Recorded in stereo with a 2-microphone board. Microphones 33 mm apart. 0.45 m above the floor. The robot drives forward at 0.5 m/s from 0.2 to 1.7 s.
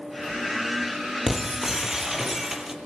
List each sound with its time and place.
1.3 s breaking glass: 10° right (ahead or behind), 5 m